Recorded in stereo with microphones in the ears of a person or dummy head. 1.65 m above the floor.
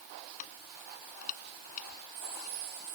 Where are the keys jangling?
45° left (ahead or behind).